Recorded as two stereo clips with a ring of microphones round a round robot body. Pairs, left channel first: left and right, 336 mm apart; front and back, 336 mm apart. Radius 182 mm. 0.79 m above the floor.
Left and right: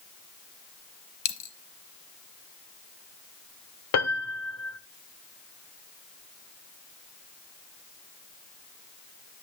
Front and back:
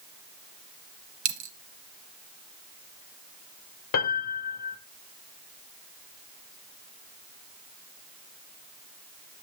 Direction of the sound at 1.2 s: 135° left.